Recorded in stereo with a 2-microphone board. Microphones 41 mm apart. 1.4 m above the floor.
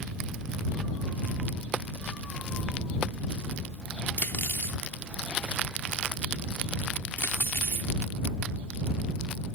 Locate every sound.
4.2 s cutlery clinking: 55° left (ahead or behind)